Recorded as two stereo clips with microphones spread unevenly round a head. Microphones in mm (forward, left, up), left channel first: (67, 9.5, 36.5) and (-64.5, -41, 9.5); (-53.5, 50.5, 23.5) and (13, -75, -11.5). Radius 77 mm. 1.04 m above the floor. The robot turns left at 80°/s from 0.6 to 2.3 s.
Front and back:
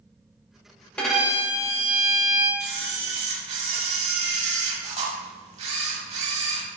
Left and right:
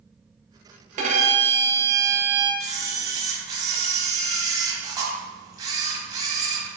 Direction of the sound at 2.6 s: 125° right.